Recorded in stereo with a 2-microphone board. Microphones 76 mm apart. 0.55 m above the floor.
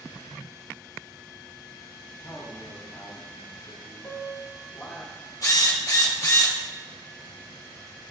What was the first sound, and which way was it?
A man speaking, 55° left (ahead or behind).